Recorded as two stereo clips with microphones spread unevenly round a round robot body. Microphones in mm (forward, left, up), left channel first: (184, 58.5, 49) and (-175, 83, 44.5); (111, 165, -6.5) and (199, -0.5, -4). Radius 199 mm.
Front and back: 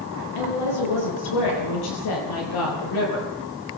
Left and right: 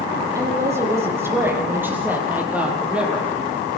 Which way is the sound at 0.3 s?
10° left.